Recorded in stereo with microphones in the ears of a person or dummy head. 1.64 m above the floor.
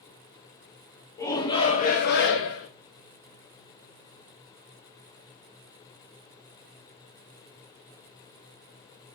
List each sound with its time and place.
1.2 s a shout: 15° left (ahead or behind), 0.8 m; by 2.7 s 75° left (ahead or behind), 0.7 m